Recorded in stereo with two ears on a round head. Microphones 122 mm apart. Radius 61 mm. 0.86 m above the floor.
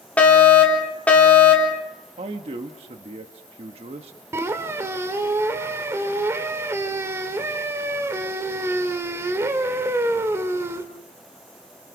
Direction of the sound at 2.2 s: 45° right (ahead or behind).